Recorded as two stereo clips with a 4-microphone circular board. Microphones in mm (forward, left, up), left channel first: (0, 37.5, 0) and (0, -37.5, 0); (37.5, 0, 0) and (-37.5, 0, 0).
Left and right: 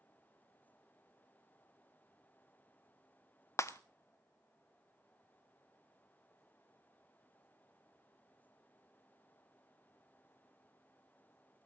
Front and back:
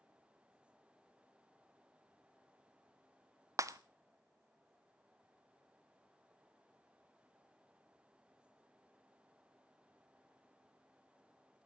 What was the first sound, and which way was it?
Breaking glass, 140° left.